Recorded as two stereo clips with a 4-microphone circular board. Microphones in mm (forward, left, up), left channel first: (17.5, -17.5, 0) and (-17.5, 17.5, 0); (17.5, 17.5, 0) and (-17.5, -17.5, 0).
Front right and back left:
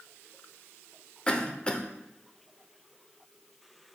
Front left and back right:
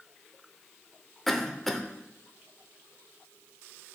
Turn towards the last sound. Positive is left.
turn(degrees=-30)